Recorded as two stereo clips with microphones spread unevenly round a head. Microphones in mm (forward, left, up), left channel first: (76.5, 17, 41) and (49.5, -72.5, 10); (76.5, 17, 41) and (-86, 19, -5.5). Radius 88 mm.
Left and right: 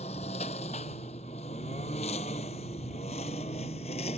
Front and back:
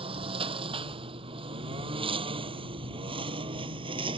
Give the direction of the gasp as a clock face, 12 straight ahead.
I don't hear a gasp.